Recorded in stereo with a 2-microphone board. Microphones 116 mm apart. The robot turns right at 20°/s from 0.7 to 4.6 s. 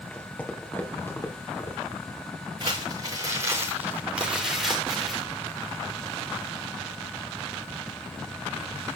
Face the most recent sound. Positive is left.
turn(degrees=0)